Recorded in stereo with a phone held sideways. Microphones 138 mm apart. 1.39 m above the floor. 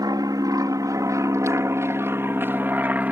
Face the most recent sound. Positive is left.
turn(degrees=-10)  # may be behind; listen again after turning